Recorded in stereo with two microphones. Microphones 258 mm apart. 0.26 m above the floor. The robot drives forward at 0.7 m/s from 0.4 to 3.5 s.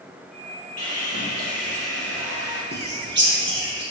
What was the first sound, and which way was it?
Sawing, 75° left (ahead or behind).